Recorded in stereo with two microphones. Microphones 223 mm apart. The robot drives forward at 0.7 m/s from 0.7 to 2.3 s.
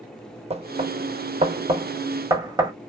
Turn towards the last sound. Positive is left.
turn(degrees=-20)  # may be behind; listen again after turning